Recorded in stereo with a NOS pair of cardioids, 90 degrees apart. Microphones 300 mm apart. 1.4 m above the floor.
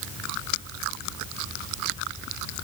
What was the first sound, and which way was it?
Only background noise.